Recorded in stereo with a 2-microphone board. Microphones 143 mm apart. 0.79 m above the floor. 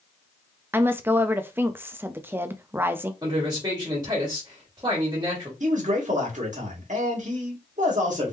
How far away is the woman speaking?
About 0.5 m.